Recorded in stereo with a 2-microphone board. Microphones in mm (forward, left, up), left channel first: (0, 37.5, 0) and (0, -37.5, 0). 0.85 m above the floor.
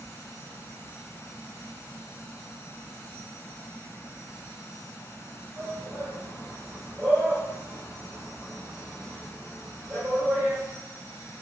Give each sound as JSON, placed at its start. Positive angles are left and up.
{"t": 5.6, "sound": "a shout", "side_deg": -10, "distance_m": 2.5}